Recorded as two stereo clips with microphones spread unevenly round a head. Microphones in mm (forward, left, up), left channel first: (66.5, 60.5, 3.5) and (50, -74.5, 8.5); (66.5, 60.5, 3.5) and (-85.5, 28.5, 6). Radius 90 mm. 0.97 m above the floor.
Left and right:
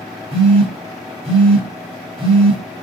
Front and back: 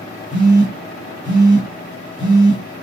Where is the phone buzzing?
55° right, 2.5 m.